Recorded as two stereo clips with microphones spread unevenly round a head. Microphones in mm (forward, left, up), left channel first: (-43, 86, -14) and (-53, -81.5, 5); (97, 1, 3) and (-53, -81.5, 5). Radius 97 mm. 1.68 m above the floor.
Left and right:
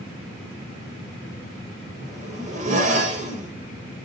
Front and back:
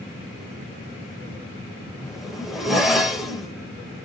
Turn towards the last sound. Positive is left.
turn(degrees=-65)